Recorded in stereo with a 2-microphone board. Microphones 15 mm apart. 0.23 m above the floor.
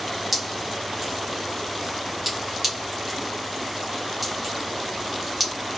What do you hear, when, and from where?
0.3 s dripping: centre (ahead or behind), 1.5 m